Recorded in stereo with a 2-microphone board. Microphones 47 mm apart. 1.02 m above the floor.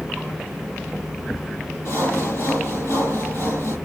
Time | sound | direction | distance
1.9 | sawing | 85° left | 7 m